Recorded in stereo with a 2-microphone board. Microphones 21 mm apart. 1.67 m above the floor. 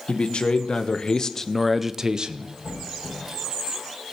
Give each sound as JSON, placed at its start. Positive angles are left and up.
{"t": 0.1, "sound": "a man speaking", "side_deg": 60, "distance_m": 1.4}
{"t": 2.6, "sound": "a squeak", "side_deg": -70, "distance_m": 7.0}